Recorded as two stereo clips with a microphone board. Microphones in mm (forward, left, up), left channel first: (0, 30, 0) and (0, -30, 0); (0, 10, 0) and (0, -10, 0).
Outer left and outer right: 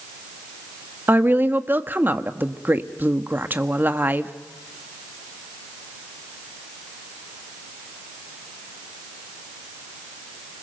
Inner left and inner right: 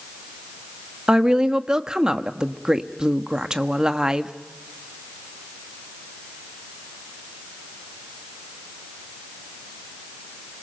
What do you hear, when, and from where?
1.1 s a woman speaking: 35° right (ahead or behind), 1.2 m